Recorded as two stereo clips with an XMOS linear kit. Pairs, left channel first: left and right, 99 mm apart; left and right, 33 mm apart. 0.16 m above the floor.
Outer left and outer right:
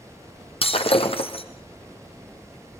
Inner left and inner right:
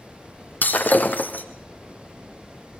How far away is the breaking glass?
About 2 m.